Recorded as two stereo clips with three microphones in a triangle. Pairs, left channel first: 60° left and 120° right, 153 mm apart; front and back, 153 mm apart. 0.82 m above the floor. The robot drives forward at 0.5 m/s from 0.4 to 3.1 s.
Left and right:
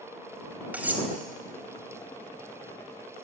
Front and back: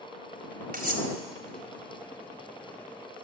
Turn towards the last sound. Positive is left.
turn(degrees=165)